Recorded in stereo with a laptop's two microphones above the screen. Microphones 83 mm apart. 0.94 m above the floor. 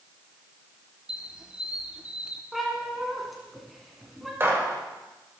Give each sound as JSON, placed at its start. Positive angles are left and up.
{"t": 1.1, "sound": "a squeak", "side_deg": -10, "distance_m": 1.0}
{"t": 2.5, "sound": "a cat meowing", "side_deg": 0, "distance_m": 1.7}
{"t": 4.4, "sound": "a gunshot", "side_deg": -30, "distance_m": 3.0}